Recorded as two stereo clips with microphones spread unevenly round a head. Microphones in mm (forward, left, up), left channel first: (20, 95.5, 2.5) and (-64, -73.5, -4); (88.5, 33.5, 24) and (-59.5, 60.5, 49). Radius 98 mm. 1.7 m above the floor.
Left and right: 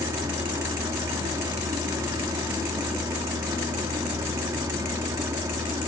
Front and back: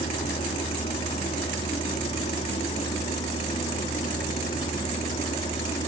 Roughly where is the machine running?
Ahead right.